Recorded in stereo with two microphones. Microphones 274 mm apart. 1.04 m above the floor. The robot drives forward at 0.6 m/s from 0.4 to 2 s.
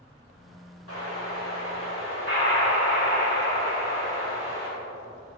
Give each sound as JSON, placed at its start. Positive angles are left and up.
{"t": 0.9, "sound": "an explosion", "side_deg": 50, "distance_m": 3.0}